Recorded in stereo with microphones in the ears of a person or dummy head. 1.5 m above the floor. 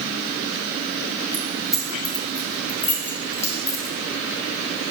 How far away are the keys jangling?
About 2.5 m.